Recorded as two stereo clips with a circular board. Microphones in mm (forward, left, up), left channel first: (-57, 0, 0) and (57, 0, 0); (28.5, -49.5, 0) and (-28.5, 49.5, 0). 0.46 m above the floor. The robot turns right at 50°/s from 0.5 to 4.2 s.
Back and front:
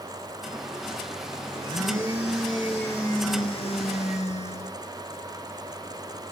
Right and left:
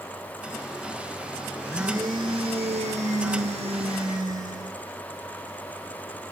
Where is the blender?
45° left, 5 m; by 4.8 s straight behind, 5 m.